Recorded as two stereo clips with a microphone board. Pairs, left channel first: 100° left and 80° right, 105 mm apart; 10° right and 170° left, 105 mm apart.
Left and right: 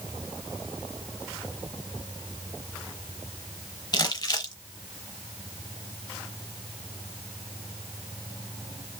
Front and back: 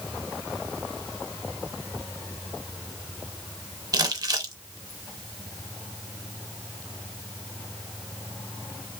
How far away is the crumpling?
About 0.6 m.